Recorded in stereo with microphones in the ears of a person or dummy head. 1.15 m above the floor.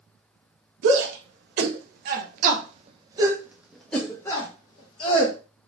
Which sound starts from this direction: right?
A shout, at 0.8 s.